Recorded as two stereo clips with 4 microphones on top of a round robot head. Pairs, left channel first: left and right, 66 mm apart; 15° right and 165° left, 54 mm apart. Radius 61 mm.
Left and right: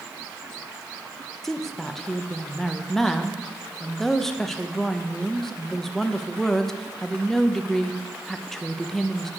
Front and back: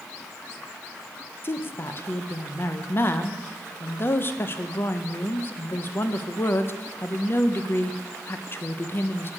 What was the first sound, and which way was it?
A woman speaking, 10° left.